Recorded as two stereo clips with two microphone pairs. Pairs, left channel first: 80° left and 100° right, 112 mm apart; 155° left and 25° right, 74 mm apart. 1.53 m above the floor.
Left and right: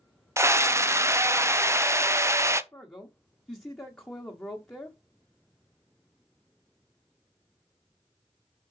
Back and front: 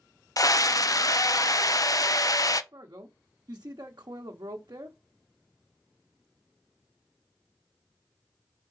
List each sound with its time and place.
0.4 s a scream: 170° right, 0.7 m
2.7 s a man speaking: 5° left, 0.9 m